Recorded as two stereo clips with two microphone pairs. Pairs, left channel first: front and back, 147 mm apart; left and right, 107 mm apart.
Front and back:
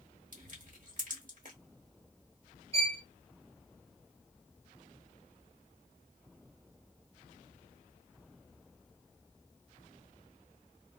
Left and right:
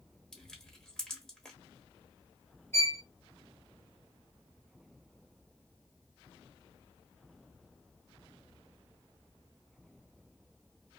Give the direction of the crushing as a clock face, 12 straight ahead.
6 o'clock.